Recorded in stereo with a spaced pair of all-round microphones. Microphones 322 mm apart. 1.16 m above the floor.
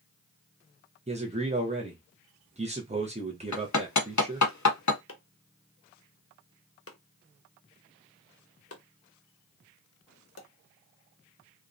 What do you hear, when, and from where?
1.1 s a man speaking: 20° right (ahead or behind), 0.6 m
3.5 s hammering: 60° left (ahead or behind), 0.6 m
5.1 s chopping: 45° left (ahead or behind), 0.6 m